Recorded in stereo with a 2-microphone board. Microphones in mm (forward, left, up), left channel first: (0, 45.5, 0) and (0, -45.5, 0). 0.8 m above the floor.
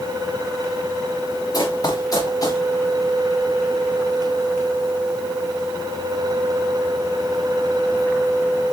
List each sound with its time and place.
1.5 s running footsteps: 45° left (ahead or behind), 3.5 m